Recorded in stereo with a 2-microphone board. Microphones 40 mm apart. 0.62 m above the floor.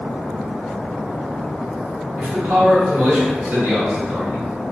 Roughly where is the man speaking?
Right.